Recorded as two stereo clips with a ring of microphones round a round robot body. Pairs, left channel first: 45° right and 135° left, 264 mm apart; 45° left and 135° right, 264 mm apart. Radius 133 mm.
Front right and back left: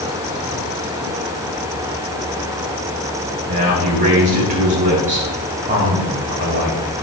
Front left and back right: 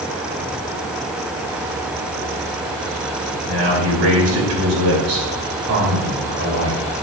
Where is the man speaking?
165° right, 3.5 m.